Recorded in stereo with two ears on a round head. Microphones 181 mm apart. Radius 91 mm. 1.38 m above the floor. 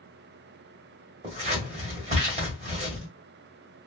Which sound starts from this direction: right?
Scissors, at 1.2 s.